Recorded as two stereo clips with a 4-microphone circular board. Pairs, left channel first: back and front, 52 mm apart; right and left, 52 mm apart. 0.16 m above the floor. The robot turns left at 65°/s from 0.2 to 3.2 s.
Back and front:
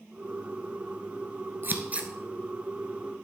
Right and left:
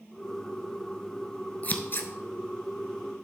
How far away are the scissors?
About 0.9 m.